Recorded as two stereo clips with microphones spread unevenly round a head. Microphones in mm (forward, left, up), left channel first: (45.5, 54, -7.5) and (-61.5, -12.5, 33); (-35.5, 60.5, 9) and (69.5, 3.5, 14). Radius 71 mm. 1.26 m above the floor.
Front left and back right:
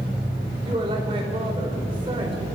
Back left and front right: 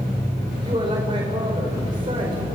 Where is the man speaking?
90° right, 4 m.